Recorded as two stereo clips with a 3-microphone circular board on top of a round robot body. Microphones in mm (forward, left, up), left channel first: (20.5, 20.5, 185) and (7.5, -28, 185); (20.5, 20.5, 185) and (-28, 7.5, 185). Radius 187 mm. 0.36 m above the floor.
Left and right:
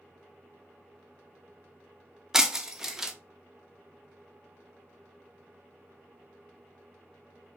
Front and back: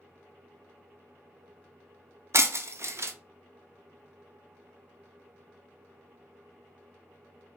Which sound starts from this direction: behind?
Breaking glass, at 2.3 s.